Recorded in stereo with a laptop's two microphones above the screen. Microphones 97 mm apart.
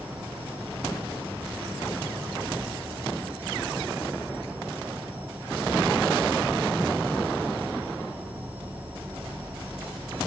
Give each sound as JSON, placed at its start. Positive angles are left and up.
{"t": 0.0, "sound": "an insect", "side_deg": -20, "distance_m": 2.0}